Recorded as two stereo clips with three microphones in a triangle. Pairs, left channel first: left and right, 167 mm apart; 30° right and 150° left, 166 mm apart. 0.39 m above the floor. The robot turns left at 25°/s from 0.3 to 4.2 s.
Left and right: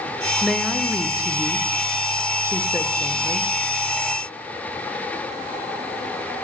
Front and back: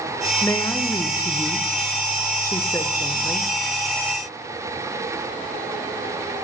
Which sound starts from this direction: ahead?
A woman speaking, at 0.4 s.